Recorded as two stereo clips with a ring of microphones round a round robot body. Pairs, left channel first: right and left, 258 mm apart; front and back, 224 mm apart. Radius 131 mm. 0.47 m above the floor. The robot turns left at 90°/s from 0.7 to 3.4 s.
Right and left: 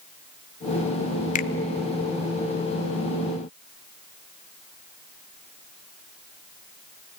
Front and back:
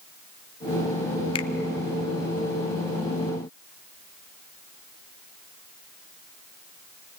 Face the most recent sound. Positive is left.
turn(degrees=125)